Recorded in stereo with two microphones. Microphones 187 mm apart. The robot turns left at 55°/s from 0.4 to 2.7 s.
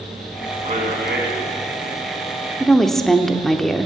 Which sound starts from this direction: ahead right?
A man speaking, at 0.6 s.